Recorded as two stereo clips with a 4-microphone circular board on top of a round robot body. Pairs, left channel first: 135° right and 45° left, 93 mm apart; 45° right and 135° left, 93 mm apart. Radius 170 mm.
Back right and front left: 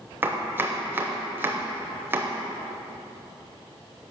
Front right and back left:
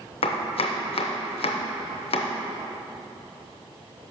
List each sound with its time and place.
0.2 s chopping: 25° right, 0.6 m